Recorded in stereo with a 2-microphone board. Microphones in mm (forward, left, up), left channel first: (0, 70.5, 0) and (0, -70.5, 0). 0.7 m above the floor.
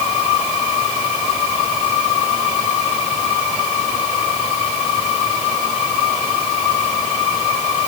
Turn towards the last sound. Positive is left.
No sound to turn to.